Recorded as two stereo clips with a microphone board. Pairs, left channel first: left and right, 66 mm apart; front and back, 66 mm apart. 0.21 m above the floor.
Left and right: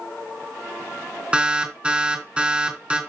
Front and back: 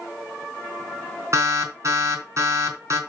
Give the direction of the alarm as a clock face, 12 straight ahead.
5 o'clock.